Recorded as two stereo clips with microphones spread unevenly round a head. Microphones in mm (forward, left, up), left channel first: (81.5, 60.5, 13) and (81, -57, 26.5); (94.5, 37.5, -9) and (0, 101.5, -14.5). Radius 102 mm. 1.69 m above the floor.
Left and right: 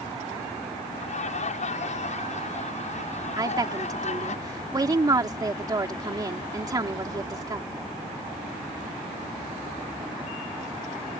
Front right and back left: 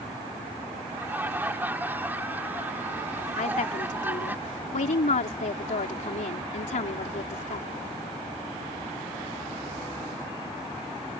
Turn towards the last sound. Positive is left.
turn(degrees=-35)